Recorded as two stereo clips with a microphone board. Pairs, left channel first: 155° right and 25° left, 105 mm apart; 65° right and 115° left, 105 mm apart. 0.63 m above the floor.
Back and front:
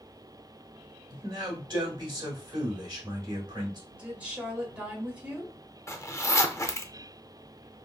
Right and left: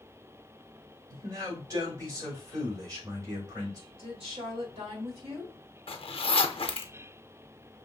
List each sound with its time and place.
1.1 s a man speaking: 65° left, 3 m
3.9 s a woman speaking: 100° left, 2.5 m
5.9 s a zipper: 95° right, 0.5 m